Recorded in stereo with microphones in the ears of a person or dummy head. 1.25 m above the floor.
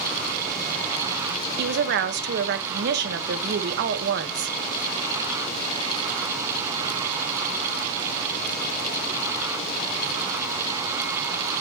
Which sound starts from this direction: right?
A woman speaking, at 1.6 s.